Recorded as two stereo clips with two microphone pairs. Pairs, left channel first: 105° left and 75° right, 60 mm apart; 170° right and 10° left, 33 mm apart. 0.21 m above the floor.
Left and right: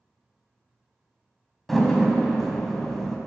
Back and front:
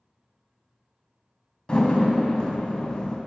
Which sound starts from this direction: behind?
A door slam, at 1.7 s.